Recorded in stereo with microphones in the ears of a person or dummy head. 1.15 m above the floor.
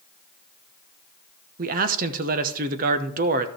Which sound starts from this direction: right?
A man speaking, at 1.6 s.